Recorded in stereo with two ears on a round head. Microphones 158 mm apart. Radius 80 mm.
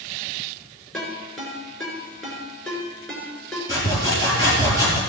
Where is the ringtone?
5° left (ahead or behind), 6 m.